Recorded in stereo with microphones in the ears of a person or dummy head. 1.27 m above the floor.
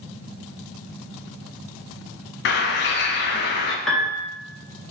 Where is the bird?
50° left (ahead or behind), 0.5 m.